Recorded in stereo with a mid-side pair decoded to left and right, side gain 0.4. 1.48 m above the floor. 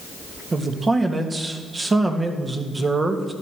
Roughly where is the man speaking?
Ahead right.